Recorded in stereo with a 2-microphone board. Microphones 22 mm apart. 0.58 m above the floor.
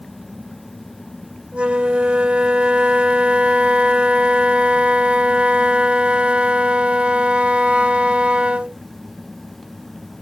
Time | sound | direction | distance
1.5 | a flute | 75° right (ahead or behind) | ?